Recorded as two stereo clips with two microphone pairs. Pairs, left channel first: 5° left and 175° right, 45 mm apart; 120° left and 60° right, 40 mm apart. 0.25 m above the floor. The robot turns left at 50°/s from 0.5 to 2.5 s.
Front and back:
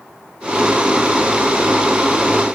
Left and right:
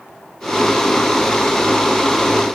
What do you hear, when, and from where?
Only background noise.